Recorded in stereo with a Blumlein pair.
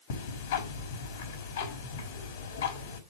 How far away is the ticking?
About 5 m.